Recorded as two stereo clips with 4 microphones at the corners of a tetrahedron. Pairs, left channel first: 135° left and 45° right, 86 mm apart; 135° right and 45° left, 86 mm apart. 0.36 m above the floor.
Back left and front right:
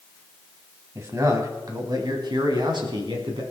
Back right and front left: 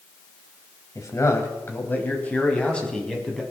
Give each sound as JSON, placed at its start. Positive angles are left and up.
{"t": 0.9, "sound": "a man speaking", "azimuth_deg": -95, "distance_m": 3.0}